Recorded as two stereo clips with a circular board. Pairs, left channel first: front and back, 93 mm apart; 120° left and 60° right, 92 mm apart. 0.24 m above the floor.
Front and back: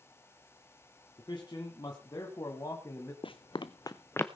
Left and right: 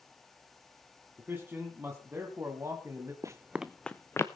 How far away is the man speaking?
About 2 m.